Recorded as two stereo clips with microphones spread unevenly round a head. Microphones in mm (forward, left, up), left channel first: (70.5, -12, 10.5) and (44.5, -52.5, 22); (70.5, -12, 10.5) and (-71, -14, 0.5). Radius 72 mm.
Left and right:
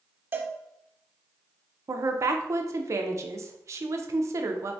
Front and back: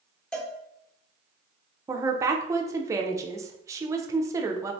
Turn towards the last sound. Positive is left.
turn(degrees=-120)